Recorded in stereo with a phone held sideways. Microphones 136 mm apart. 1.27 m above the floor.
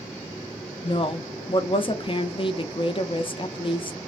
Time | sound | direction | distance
0.8 | a woman speaking | 40° left (ahead or behind) | 0.7 m